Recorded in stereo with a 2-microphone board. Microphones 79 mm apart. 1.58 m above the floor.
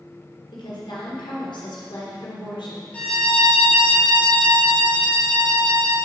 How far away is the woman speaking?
About 1.4 m.